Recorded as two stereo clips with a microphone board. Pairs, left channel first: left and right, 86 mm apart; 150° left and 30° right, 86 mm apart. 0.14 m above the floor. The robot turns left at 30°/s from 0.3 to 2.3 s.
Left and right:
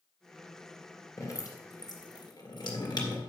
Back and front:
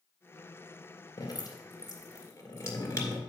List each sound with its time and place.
1.2 s dripping: 135° left, 2.5 m; by 3.2 s 100° left, 2.5 m